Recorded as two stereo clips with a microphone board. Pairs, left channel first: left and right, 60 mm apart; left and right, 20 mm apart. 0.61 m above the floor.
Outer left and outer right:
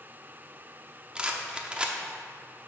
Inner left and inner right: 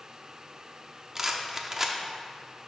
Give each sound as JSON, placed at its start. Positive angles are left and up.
{"t": 1.1, "sound": "a rattle", "side_deg": -20, "distance_m": 0.7}